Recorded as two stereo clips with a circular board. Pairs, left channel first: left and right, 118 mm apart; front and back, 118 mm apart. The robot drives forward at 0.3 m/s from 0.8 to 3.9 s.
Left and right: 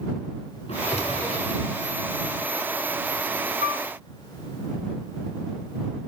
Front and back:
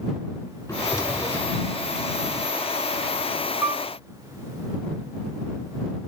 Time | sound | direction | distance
0.7 | a drawer | 60° left | 4.5 m
3.6 | a piano | 110° right | 4.5 m